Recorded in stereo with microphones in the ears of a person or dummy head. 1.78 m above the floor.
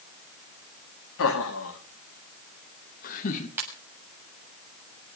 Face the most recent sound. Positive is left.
turn(degrees=-15)  # may be behind; listen again after turning